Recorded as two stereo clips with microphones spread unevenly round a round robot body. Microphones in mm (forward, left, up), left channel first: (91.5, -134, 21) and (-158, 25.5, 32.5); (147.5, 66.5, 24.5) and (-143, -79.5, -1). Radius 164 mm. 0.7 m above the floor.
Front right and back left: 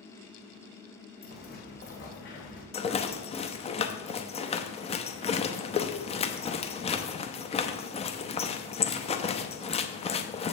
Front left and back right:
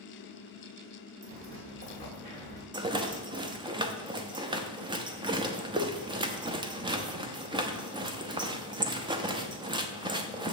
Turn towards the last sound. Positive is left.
turn(degrees=-90)